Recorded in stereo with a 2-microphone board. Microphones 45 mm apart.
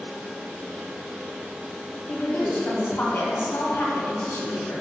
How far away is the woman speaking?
About 2.5 m.